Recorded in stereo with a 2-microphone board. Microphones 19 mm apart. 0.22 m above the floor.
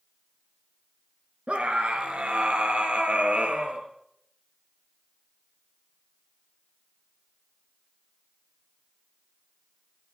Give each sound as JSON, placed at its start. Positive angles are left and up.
{"t": 1.5, "sound": "a scream", "side_deg": -65, "distance_m": 3.5}